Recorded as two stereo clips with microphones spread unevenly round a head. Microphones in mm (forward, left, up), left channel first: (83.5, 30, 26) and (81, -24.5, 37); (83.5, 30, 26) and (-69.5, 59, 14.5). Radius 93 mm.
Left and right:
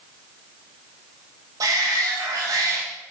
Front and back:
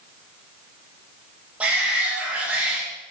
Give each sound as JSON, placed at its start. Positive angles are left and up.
{"t": 1.6, "sound": "a shout", "azimuth_deg": -110, "distance_m": 3.0}